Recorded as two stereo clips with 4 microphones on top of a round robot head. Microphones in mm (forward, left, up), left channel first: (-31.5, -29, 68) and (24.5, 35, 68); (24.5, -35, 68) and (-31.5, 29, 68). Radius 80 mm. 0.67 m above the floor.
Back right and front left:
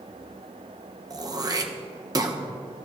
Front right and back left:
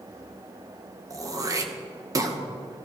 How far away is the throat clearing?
About 1.3 m.